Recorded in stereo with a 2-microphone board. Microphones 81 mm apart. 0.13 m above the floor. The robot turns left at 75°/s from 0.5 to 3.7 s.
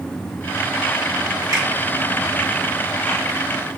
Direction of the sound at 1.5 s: 45° right (ahead or behind).